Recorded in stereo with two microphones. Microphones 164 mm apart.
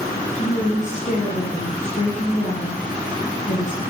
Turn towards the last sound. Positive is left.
turn(degrees=45)  # may be behind; listen again after turning